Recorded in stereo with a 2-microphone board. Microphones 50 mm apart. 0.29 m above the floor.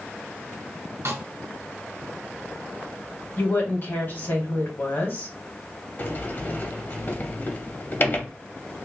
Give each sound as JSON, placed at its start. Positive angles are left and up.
{"t": 1.1, "sound": "a snare drum", "side_deg": -65, "distance_m": 1.1}
{"t": 3.4, "sound": "a woman speaking", "side_deg": 45, "distance_m": 2.0}
{"t": 6.0, "sound": "a sliding door", "side_deg": 40, "distance_m": 0.9}